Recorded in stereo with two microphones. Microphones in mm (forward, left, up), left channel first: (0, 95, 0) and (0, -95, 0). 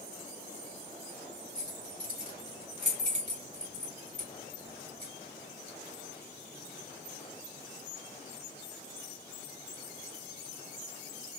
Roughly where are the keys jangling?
Right.